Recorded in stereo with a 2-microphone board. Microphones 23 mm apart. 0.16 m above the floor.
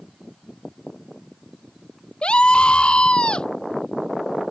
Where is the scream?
45° left (ahead or behind); by 3.5 s 40° left (ahead or behind).